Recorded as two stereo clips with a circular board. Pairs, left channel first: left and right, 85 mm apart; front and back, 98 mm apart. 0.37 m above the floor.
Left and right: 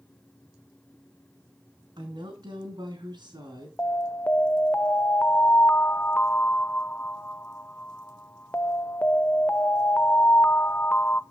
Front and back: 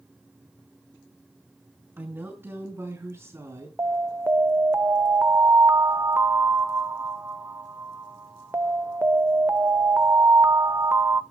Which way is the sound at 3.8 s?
140° left.